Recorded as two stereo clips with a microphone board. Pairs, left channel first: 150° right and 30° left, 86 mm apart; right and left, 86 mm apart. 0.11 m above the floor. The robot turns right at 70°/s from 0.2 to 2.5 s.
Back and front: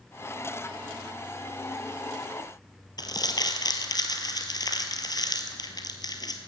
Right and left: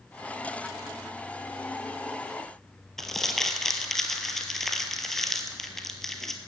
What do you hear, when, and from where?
3.0 s crumpling: 175° right, 1.3 m